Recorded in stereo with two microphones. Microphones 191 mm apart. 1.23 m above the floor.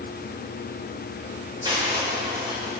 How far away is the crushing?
About 4.5 m.